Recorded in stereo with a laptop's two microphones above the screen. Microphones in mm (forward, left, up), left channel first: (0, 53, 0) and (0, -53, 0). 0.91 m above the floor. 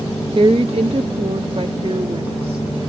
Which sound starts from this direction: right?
A woman speaking, at 0.3 s.